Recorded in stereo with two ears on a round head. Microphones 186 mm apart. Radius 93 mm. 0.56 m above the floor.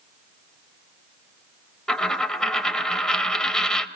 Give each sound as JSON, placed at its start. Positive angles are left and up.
{"t": 1.9, "sound": "a dropped coin", "side_deg": 5, "distance_m": 1.1}